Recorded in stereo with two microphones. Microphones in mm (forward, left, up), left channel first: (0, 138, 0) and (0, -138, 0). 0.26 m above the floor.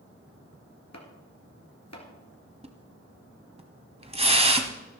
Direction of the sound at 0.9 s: 70° left (ahead or behind).